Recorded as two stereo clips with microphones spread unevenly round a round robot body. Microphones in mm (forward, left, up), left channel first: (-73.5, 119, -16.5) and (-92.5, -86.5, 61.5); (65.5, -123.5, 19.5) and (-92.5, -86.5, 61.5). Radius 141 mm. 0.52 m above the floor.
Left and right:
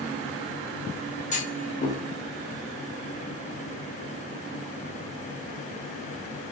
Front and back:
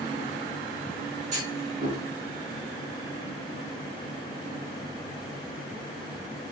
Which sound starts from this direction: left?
A clunk, at 1.3 s.